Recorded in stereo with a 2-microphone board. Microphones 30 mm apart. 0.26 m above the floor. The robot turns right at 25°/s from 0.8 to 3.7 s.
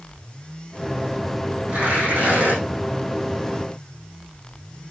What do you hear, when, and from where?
1.7 s tearing paper: 50° right (ahead or behind), 6 m; by 2.6 s 70° right (ahead or behind), 6 m